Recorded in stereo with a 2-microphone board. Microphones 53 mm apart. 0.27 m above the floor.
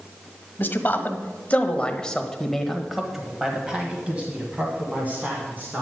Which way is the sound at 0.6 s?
40° left (ahead or behind).